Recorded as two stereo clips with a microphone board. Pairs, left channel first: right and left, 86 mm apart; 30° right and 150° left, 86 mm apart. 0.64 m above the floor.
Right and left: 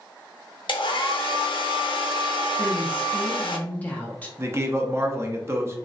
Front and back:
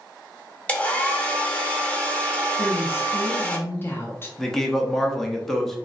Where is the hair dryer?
105° right, 0.6 m.